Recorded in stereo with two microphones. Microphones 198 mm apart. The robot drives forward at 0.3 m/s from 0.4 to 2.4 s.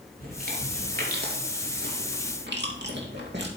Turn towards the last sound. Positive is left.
turn(degrees=-60)  # may be behind; listen again after turning